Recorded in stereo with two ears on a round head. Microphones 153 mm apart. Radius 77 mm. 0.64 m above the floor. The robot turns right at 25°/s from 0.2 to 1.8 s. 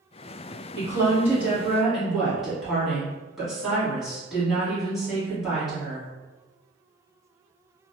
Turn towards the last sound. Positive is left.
turn(degrees=0)  # may be behind; listen again after turning